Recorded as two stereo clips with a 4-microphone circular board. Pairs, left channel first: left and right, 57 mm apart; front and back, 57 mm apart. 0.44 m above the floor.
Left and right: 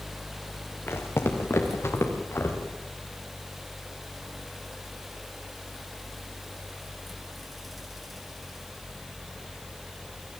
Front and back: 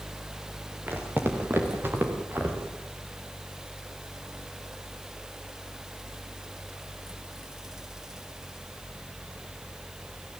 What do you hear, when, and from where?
0.9 s footsteps: 130° left, 4 m